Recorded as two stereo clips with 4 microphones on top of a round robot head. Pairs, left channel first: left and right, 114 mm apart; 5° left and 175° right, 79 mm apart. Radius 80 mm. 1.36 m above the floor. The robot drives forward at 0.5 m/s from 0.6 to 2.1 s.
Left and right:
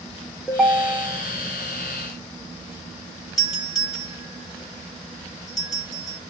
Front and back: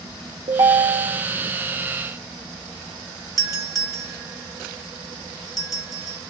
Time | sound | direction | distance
0.5 | a ringtone | straight behind | 0.8 m
3.4 | a doorbell | 145° left | 2 m